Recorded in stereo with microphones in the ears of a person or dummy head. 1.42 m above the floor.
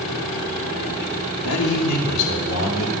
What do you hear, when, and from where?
1.4 s a man speaking: 80° left, 2.5 m